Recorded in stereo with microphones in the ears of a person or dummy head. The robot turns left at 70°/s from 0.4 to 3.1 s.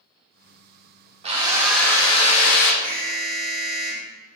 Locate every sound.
1.2 s a drill: 145° right, 0.6 m; by 2.7 s 110° left, 0.6 m
2.8 s an alarm: 15° left (ahead or behind), 1.9 m; by 4.1 s centre (ahead or behind), 1.9 m